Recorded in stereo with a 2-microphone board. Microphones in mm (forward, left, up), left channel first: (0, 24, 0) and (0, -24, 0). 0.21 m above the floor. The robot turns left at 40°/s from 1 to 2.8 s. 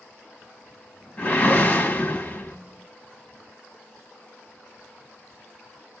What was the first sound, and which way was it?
A whoosh, 120° left.